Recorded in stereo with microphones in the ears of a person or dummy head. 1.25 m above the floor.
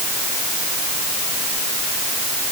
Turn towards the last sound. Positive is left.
No sound to turn to.